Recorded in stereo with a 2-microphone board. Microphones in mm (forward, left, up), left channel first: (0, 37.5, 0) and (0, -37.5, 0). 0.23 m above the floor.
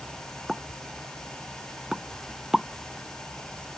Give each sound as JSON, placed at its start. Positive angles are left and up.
{"t": 0.5, "sound": "a pop", "side_deg": -5}